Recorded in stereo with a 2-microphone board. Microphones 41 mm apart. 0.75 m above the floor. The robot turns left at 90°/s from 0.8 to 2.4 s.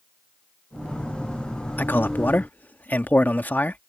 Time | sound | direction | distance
1.8 | a man speaking | 115° left | ?